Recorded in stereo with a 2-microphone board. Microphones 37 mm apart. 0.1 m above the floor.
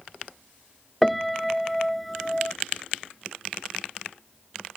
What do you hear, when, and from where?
1.0 s a piano: centre (ahead or behind)